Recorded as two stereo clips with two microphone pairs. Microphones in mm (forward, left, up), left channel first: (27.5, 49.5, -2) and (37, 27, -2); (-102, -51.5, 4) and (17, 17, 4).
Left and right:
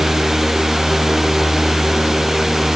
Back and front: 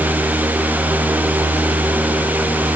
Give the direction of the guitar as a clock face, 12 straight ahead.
I don't hear a guitar.